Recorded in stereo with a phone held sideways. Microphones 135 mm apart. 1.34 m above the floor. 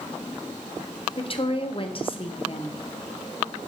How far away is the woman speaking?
About 0.6 m.